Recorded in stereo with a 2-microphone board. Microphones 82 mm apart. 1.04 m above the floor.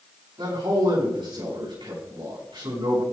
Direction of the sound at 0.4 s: 75° right (ahead or behind).